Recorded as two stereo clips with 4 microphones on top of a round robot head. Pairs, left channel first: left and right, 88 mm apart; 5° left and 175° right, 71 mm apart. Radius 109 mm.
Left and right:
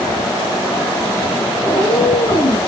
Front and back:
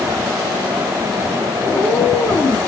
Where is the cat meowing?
55° left, 7 m.